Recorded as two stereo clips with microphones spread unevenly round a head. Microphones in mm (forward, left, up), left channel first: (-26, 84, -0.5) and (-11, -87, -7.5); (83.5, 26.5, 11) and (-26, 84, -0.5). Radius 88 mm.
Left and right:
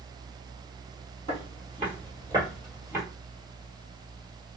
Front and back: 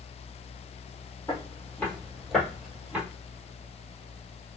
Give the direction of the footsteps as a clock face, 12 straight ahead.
2 o'clock.